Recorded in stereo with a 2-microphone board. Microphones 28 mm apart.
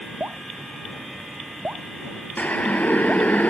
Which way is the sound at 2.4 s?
70° left (ahead or behind).